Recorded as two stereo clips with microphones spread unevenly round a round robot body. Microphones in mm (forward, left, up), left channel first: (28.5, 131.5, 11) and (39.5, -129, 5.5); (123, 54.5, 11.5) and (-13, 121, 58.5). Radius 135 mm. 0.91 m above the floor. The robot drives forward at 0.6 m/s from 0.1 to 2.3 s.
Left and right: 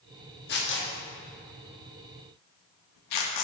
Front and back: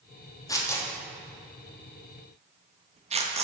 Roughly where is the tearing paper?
Ahead left.